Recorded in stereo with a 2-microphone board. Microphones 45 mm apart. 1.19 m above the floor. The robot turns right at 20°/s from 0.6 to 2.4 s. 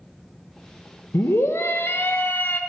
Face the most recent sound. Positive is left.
turn(degrees=45)  # may be behind; listen again after turning